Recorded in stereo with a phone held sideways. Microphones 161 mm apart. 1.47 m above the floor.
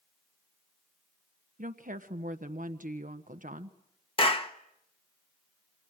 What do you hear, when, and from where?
1.6 s a woman speaking: 55° right (ahead or behind), 1.2 m
4.2 s a clap: 35° left (ahead or behind), 1.4 m